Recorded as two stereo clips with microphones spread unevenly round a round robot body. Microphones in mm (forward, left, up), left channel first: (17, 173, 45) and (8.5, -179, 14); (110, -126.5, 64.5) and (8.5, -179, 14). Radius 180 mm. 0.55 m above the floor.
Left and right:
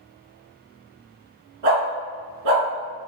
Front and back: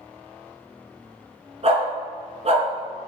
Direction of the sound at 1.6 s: 115° right.